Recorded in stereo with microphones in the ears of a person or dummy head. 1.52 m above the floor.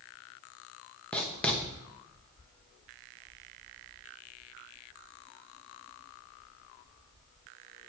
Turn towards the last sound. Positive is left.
turn(degrees=5)  # may be behind; listen again after turning